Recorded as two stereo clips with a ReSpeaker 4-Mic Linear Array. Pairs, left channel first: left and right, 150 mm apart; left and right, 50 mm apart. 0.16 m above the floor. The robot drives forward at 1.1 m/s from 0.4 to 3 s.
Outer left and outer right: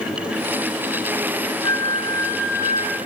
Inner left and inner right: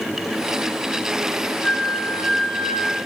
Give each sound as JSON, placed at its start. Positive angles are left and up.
{"t": 1.6, "sound": "a flute", "side_deg": 30, "distance_m": 3.0}